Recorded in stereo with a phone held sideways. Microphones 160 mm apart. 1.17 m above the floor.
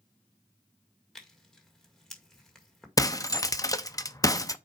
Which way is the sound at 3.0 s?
25° left (ahead or behind).